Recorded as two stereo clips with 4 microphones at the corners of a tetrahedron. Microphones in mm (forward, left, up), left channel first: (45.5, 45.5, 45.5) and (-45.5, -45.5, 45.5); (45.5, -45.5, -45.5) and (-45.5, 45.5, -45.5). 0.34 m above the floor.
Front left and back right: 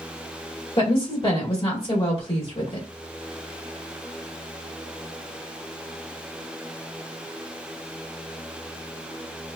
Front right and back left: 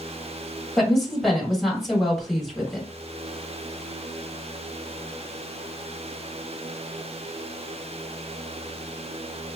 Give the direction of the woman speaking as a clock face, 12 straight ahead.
11 o'clock.